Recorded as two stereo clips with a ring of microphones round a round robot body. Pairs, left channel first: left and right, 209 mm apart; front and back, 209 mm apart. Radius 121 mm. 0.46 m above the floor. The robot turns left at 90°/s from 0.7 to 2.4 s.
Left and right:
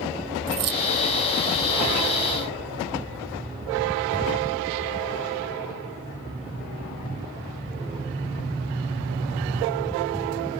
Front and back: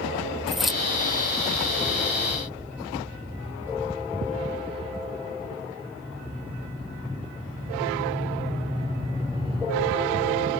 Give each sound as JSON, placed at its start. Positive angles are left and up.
{"t": 0.5, "sound": "keys jangling", "azimuth_deg": -90}